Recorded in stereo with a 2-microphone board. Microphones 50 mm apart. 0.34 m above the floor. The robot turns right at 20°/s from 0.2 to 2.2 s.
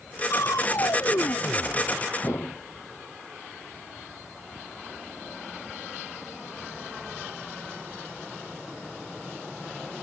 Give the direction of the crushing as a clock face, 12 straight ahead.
9 o'clock.